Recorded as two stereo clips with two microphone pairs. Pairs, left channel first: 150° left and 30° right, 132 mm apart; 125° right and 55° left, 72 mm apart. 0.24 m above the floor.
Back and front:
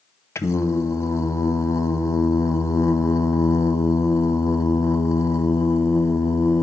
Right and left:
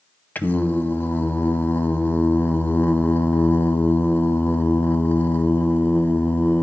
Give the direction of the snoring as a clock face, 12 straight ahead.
I don't hear snoring.